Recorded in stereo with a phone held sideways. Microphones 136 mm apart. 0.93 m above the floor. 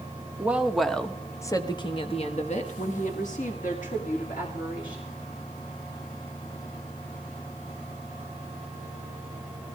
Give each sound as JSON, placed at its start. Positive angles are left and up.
{"t": 0.4, "sound": "a woman speaking", "side_deg": -10, "distance_m": 1.5}